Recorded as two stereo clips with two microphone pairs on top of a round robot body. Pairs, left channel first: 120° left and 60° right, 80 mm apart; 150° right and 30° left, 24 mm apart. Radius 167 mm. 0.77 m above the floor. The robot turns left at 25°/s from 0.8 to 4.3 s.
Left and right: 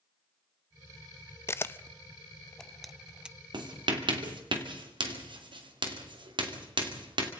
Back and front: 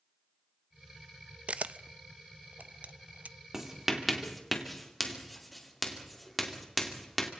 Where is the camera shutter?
65° left, 0.6 m; by 3.4 s 15° left, 0.6 m.